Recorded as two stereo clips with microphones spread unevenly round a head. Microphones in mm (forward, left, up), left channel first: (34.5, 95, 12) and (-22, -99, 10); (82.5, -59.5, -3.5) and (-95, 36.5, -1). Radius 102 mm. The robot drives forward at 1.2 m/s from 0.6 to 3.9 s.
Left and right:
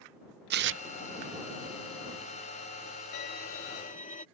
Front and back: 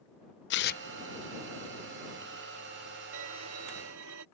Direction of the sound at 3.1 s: 115° left.